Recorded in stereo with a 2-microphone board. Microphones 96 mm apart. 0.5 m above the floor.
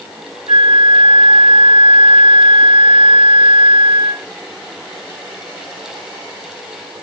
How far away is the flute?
About 2.0 m.